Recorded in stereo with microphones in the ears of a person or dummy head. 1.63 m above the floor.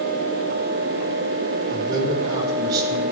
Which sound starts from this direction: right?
A man speaking, at 1.7 s.